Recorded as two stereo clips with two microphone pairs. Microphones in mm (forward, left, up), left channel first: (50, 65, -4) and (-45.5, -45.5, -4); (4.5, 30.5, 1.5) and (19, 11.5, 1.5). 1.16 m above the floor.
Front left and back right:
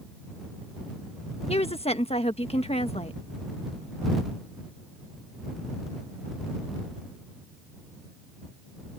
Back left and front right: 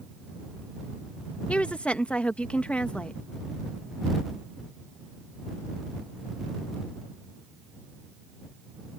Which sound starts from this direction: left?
A woman speaking, at 1.5 s.